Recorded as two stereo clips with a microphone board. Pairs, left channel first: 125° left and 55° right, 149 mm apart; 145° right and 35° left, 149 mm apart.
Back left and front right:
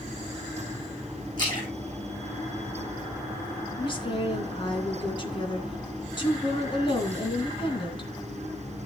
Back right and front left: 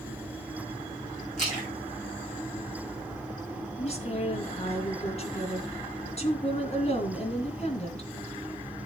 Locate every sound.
1.4 s a splash: straight behind, 6 m
3.8 s a woman speaking: 175° left, 2.5 m